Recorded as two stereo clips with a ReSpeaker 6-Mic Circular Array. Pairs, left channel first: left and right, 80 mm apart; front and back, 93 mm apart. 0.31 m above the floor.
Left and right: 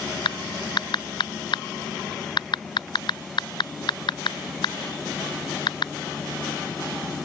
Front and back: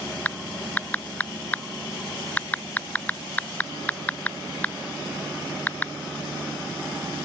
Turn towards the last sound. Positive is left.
turn(degrees=75)